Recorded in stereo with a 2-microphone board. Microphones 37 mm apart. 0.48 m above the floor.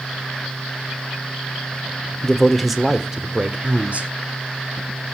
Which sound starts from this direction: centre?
A man speaking, at 2.2 s.